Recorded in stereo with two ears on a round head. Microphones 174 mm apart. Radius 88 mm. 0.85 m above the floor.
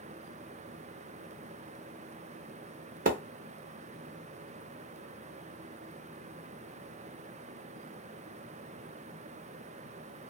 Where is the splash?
45° right (ahead or behind), 0.6 m.